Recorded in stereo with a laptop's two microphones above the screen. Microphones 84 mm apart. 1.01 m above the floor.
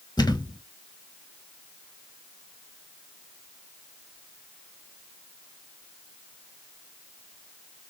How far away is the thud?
About 1.7 m.